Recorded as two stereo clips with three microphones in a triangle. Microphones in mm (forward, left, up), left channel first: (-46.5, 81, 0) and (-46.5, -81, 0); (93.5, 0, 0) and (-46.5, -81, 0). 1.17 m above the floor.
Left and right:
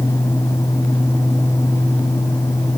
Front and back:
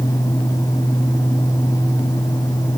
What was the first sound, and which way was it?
Only background noise.